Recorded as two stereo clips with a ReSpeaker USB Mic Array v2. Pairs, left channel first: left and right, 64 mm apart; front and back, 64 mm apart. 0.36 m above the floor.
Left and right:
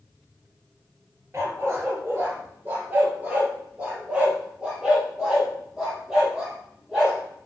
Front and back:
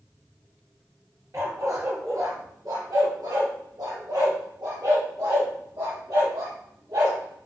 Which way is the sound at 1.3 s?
140° right.